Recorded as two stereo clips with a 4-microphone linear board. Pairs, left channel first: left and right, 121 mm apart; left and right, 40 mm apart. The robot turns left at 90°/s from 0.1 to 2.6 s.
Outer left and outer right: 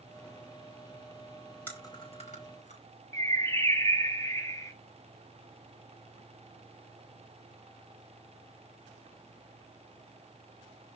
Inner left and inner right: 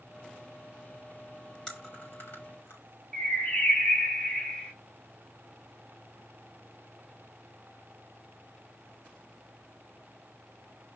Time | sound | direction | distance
1.7 | chewing | 15° left (ahead or behind) | 4.5 m
3.1 | a bird | 25° left (ahead or behind) | 1.4 m